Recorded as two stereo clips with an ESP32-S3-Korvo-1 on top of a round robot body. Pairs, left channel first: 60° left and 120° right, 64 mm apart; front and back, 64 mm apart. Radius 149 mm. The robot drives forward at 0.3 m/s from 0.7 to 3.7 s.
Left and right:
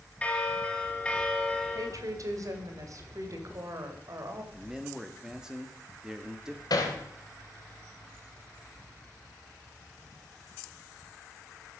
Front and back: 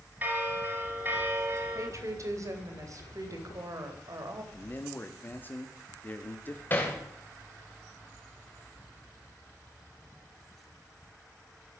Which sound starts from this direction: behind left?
A bell, at 0.2 s.